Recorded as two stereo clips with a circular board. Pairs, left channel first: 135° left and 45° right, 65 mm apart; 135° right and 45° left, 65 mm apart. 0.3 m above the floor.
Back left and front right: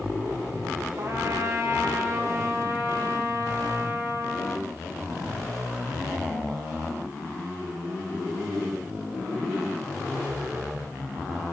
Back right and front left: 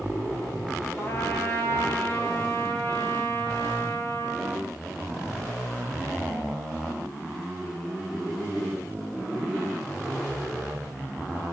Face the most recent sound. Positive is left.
turn(degrees=-85)